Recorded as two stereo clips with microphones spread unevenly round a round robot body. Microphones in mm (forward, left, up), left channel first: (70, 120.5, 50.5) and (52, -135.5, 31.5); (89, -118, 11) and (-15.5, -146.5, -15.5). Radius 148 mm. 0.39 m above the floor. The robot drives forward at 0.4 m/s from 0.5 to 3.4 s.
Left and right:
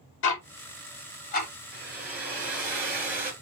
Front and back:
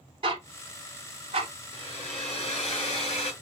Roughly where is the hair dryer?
Ahead.